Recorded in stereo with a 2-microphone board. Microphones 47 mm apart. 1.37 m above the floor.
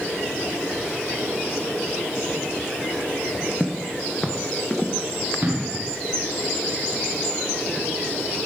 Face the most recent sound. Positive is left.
turn(degrees=-40)  # may be behind; listen again after turning